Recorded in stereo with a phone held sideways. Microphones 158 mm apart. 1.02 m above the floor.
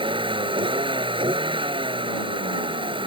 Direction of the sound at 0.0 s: 35° right (ahead or behind).